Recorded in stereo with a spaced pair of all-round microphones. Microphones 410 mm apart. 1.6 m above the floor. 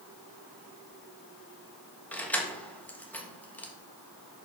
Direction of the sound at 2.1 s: 5° left (ahead or behind).